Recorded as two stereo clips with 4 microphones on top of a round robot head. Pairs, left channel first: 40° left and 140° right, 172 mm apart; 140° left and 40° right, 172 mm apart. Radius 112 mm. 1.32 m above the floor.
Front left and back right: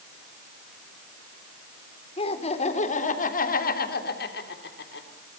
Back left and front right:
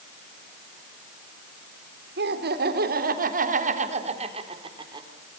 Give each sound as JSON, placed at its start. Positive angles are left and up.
{"t": 2.2, "sound": "laughter", "azimuth_deg": -15, "distance_m": 4.0}